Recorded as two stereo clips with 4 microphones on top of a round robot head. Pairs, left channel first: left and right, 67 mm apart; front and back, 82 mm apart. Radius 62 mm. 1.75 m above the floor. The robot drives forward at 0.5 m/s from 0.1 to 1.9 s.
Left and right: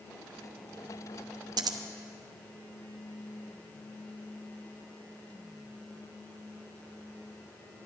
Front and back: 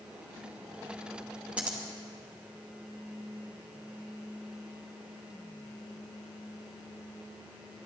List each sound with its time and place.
1.6 s scissors: 100° right, 0.9 m; by 1.8 s 110° right, 0.9 m